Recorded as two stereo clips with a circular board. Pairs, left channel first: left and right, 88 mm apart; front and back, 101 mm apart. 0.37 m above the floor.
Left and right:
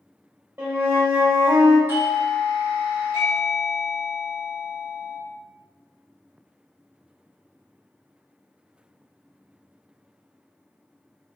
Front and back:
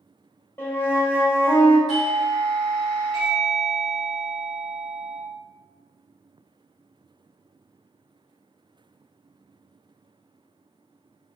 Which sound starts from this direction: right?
A doorbell, at 1.9 s.